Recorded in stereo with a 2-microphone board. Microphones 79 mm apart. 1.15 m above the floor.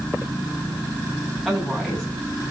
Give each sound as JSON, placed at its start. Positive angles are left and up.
{"t": 1.4, "sound": "a woman speaking", "side_deg": 10, "distance_m": 8.5}